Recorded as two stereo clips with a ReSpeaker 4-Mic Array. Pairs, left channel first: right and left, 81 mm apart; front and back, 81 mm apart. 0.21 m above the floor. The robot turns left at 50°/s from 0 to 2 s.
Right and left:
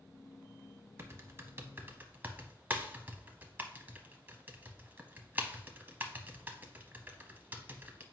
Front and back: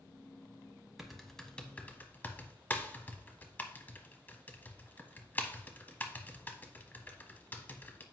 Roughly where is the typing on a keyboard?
Left.